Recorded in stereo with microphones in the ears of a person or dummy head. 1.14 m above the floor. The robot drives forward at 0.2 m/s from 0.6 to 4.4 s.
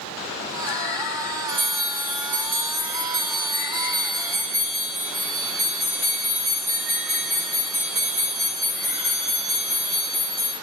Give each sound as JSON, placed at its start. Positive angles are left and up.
{"t": 1.5, "sound": "a bell", "side_deg": -65, "distance_m": 1.3}